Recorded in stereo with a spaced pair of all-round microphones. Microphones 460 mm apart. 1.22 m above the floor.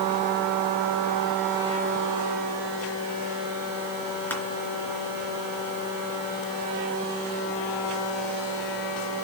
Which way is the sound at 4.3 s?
5° left (ahead or behind).